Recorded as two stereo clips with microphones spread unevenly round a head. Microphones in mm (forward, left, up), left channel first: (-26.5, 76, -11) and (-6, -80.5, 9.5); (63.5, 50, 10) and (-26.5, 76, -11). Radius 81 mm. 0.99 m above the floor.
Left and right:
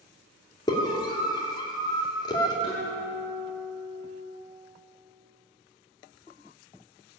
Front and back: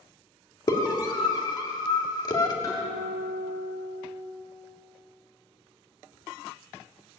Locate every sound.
0.7 s a scream: 35° left, 2.5 m
2.6 s a guitar: 35° left, 6.5 m